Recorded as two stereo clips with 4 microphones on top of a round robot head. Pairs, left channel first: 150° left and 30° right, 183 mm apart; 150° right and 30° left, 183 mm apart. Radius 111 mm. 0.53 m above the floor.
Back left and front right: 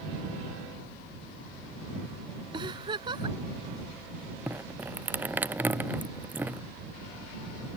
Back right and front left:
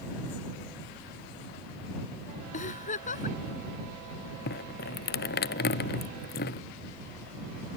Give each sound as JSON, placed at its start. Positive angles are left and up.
{"t": 2.5, "sound": "a giggle", "azimuth_deg": -100}
{"t": 4.5, "sound": "dripping", "azimuth_deg": -110}